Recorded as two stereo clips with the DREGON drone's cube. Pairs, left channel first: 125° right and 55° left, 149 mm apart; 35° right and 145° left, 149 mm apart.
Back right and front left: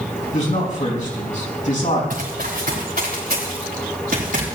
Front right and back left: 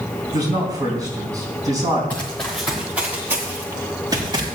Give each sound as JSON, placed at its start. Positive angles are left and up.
{"t": 0.3, "sound": "a man speaking", "azimuth_deg": -150, "distance_m": 3.5}
{"t": 2.1, "sound": "running footsteps", "azimuth_deg": 45, "distance_m": 3.0}